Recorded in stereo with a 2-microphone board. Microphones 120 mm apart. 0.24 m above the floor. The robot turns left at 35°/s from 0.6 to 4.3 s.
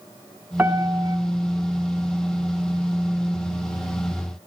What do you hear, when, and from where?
0.6 s a piano: 15° right (ahead or behind), 3 m; by 1.2 s 30° right (ahead or behind), 3 m